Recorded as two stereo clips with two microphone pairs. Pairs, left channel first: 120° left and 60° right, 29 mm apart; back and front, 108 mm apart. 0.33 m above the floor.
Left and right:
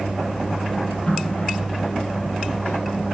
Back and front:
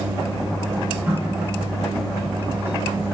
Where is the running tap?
70° left, 4 m.